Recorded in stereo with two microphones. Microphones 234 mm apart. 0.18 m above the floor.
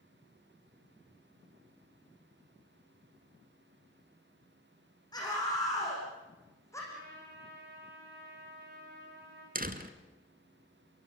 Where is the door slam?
40° right (ahead or behind), 1.7 m.